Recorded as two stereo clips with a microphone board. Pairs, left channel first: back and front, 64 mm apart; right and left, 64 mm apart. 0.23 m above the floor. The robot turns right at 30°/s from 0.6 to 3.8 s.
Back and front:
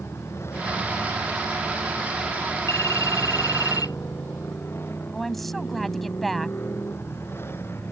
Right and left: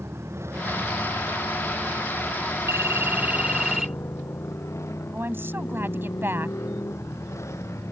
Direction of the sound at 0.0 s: 135° left.